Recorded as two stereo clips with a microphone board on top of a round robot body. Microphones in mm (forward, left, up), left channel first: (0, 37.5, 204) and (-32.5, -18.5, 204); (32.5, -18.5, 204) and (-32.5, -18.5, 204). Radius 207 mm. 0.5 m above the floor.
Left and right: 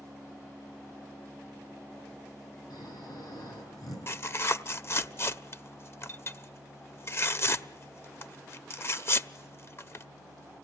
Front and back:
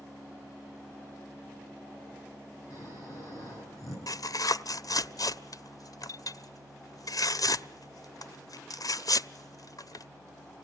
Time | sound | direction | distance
2.7 | snoring | 40° left | 9.5 m
4.1 | tearing paper | 15° left | 1.0 m